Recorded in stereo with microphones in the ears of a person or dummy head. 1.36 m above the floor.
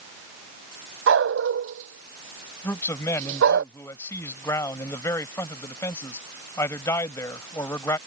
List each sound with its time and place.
1.1 s a dog barking: 70° right (ahead or behind)
2.6 s a man speaking: 15° left (ahead or behind)